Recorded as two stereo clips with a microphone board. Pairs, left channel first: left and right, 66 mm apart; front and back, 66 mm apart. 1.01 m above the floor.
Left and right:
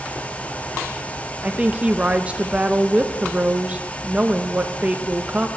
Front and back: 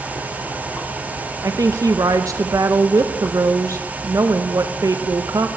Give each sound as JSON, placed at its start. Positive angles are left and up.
{"t": 1.4, "sound": "a woman speaking", "azimuth_deg": -155, "distance_m": 0.7}